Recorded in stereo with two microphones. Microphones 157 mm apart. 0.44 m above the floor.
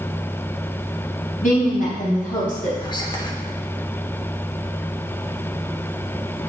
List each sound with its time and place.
1.4 s a woman speaking: 60° left (ahead or behind), 3.5 m
2.8 s whispering: 30° left (ahead or behind), 0.9 m